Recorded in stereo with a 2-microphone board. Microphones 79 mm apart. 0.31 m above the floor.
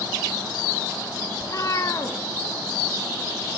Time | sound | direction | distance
1.4 | a cat meowing | 45° left (ahead or behind) | 0.5 m